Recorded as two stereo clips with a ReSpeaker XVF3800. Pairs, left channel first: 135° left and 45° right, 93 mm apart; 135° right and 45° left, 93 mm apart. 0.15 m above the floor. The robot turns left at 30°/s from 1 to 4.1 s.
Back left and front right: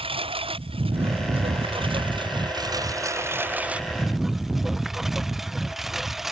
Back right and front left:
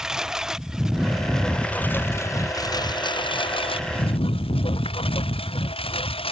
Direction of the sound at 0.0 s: 40° right.